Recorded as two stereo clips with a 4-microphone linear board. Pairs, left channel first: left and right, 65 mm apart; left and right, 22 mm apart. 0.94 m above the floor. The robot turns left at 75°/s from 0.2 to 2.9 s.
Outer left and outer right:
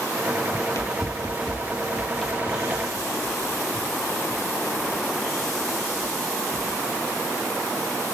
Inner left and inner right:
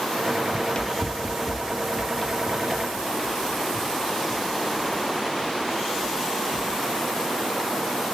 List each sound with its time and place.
0.5 s running footsteps: 50° left (ahead or behind), 1.3 m; by 6.7 s 20° right (ahead or behind), 4 m